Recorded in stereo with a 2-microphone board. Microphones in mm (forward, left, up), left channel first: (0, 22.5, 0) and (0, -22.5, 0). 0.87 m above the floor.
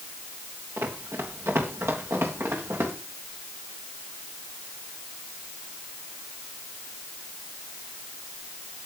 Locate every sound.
0.8 s running footsteps: 75° right (ahead or behind), 5 m; by 2.9 s 80° right, 8 m